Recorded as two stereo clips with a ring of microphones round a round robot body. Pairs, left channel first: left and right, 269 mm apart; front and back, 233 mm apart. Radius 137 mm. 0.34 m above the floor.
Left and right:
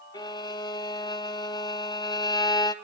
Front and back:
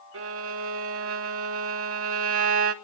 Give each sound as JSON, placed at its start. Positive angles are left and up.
{"t": 0.1, "sound": "a violin", "azimuth_deg": 165, "distance_m": 1.6}